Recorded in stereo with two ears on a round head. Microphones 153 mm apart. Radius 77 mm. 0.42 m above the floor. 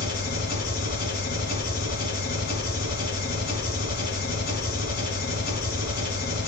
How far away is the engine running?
About 3 m.